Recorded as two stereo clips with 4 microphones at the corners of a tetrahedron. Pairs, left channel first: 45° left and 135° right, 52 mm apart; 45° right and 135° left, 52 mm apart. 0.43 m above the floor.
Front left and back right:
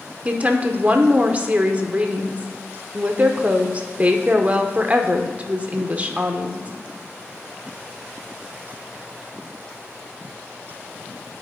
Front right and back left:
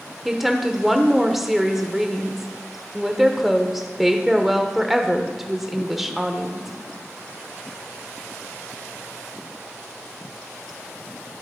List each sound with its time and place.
0.2 s a woman speaking: 145° right, 0.8 m